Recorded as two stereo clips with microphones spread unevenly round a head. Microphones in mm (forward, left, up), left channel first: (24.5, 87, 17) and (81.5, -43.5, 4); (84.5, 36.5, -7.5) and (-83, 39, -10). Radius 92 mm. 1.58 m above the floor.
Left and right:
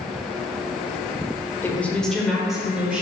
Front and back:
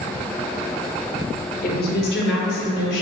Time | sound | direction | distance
1.6 | a woman speaking | 35° left | 0.8 m